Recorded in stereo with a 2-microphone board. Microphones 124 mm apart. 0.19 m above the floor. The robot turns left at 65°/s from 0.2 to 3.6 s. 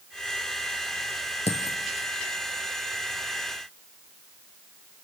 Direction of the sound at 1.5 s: 60° left (ahead or behind).